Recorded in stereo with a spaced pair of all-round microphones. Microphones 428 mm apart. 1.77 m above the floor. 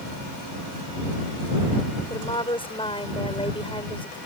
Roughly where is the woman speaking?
Centre.